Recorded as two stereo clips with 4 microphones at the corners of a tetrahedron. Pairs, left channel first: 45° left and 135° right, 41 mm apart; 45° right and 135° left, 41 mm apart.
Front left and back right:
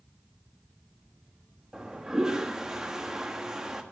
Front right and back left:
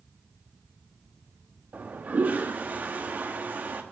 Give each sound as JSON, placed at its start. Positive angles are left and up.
{"t": 1.7, "sound": "a toilet flushing", "azimuth_deg": 155, "distance_m": 1.1}